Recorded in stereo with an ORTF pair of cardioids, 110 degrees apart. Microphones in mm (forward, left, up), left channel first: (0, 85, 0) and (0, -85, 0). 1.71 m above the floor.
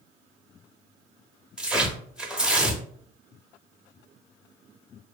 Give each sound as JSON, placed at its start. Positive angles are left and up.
{"t": 1.6, "sound": "tearing paper", "azimuth_deg": -5, "distance_m": 0.6}